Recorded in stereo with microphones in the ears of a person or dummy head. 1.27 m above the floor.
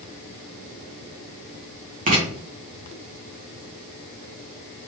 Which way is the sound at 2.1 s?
40° right (ahead or behind).